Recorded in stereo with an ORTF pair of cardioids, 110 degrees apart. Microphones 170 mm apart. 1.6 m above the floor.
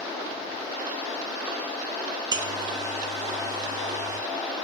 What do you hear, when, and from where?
2.3 s a buzzer: 25° right, 1.7 m